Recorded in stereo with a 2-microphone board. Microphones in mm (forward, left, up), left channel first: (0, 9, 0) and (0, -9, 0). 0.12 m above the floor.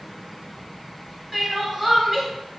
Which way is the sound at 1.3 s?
5° right (ahead or behind).